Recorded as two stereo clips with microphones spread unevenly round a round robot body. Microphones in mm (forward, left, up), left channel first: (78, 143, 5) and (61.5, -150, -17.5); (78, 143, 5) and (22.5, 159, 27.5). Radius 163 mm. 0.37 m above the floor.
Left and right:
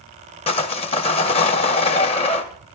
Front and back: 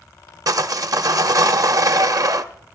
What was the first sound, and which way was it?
Sawing, 155° left.